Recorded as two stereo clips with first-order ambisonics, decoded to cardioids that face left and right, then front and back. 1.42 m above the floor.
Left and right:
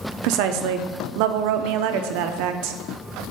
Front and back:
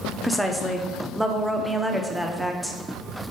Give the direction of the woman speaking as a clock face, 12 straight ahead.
3 o'clock.